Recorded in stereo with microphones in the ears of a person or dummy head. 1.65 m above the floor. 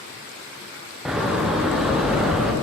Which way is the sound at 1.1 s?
10° right (ahead or behind).